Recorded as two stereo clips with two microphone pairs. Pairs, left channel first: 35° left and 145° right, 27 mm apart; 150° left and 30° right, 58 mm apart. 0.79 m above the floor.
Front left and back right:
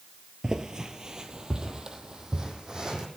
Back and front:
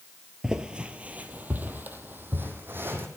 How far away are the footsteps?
About 0.9 m.